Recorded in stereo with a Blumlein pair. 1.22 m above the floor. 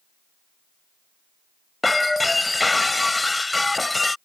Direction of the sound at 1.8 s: 5° left.